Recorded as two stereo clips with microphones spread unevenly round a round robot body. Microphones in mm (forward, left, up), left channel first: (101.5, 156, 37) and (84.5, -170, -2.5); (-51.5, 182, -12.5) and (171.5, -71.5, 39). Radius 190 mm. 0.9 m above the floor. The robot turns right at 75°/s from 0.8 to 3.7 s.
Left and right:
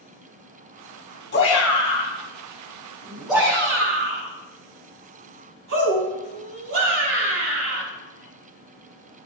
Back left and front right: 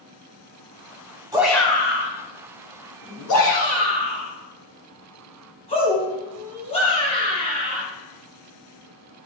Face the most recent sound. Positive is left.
turn(degrees=-150)